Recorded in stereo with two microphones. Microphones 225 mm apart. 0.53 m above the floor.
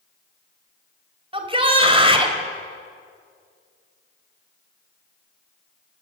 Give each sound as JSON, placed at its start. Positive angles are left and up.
{"t": 1.3, "sound": "a shout", "side_deg": -25, "distance_m": 2.5}